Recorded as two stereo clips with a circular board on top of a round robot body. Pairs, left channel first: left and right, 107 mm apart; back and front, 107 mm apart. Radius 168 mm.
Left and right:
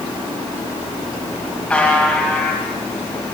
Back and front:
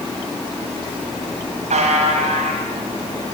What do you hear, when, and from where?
1.7 s a buzzer: 10° left, 1.7 m